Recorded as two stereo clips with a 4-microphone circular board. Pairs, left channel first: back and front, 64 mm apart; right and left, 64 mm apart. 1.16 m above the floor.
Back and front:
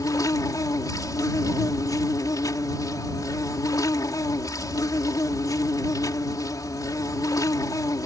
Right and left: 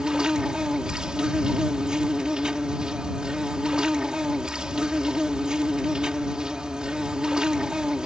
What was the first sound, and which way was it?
An insect, 170° left.